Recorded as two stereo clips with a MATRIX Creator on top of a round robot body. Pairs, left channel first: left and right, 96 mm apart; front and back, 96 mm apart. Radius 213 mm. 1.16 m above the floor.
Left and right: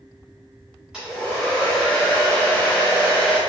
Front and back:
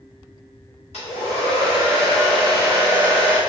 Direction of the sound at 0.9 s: 10° right.